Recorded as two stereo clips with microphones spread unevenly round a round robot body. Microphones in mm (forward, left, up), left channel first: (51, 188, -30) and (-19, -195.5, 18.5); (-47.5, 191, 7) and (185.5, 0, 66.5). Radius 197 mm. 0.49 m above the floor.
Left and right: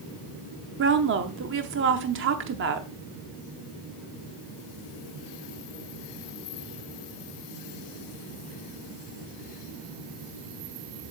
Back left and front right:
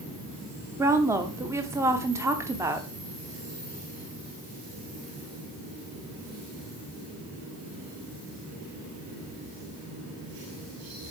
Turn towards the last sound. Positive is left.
turn(degrees=-135)